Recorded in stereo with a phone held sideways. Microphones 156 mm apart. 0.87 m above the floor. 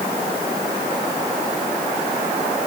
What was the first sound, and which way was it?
Only background noise.